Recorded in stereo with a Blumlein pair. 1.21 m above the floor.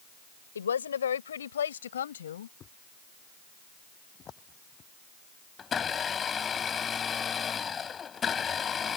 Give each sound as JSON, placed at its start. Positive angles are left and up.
{"t": 0.6, "sound": "a woman speaking", "azimuth_deg": 70}
{"t": 2.6, "sound": "a thud", "azimuth_deg": 25}
{"t": 5.6, "sound": "a blender", "azimuth_deg": 20}